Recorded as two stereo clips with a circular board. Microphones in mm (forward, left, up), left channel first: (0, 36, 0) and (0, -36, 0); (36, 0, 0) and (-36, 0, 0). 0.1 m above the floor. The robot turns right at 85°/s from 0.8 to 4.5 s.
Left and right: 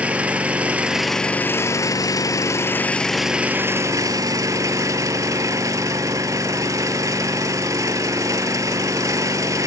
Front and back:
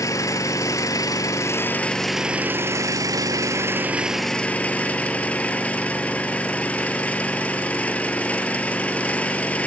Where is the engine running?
20° right, 0.9 m; by 9.7 s 65° right, 0.9 m.